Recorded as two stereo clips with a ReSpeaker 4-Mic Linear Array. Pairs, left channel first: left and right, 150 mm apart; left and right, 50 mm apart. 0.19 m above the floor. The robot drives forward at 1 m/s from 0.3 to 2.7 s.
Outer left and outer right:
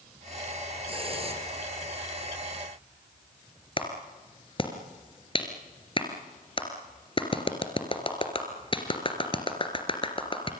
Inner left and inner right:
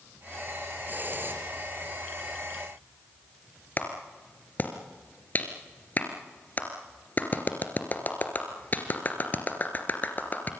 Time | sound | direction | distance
0.9 | a hiss | 40° right (ahead or behind) | 4 m
3.8 | a clap | 35° left (ahead or behind) | 2.5 m